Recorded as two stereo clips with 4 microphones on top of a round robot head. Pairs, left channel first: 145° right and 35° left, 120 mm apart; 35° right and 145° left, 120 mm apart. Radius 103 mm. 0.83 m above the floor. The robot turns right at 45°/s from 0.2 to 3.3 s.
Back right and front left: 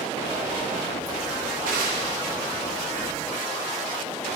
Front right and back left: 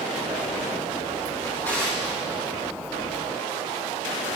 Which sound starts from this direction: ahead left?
A drawer, at 1.4 s.